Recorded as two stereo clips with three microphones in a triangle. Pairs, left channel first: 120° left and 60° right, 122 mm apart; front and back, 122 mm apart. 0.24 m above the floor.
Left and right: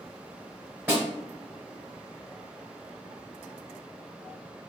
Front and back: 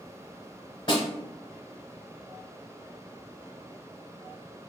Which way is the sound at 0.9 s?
Straight ahead.